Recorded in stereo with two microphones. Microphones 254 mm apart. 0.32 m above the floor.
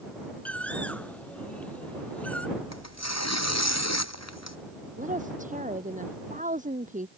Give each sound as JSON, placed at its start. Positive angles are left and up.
{"t": 0.5, "sound": "a bird", "side_deg": 5}
{"t": 2.6, "sound": "tearing paper", "side_deg": 90}
{"t": 5.0, "sound": "a woman speaking", "side_deg": -30}